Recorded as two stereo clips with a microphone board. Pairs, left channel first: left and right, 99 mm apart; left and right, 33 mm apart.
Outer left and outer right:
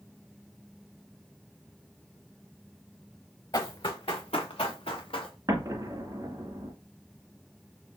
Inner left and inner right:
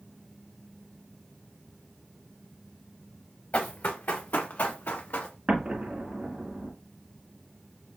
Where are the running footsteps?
50° left (ahead or behind), 1.3 m; by 5.3 s 65° left (ahead or behind), 2 m.